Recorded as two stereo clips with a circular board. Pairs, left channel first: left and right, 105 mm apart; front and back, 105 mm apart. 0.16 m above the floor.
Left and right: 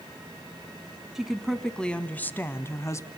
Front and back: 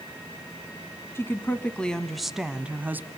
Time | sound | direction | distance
1.1 | a woman speaking | 10° right | 1.2 m